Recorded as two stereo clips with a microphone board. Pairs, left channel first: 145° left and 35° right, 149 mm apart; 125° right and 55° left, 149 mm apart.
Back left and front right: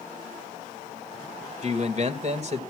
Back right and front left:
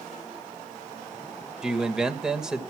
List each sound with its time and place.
1.6 s a man speaking: 30° right, 2 m